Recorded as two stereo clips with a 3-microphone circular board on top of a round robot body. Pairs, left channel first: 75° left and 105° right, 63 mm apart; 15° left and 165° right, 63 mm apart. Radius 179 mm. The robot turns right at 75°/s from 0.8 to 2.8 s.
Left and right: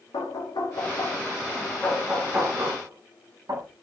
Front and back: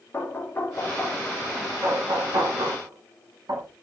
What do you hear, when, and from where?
0.1 s knocking: 75° left, 2 m; by 3.7 s 135° right, 2 m